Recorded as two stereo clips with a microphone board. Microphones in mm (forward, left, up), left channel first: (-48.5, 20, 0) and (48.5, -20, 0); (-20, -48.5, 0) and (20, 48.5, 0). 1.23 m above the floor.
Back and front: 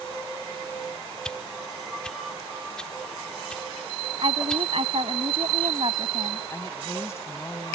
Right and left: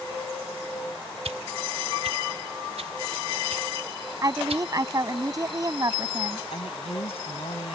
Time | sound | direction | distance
1.2 | a whoosh | 75° left | ?
4.2 | a woman speaking | 10° left | ?
6.5 | a woman speaking | 140° right | ?